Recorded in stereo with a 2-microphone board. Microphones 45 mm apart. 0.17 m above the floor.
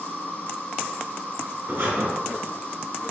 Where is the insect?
40° left (ahead or behind), 1.8 m.